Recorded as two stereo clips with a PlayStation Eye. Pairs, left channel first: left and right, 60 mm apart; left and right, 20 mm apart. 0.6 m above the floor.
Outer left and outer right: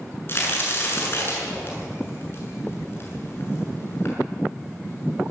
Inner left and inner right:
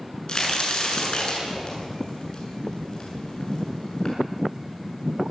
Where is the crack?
40° left (ahead or behind), 6.5 m.